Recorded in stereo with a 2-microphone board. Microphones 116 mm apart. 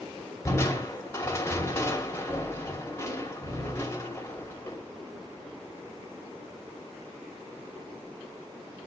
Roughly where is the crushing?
Left.